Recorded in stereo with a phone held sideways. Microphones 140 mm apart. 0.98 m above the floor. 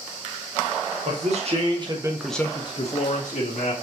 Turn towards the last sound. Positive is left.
turn(degrees=75)  # may be behind; listen again after turning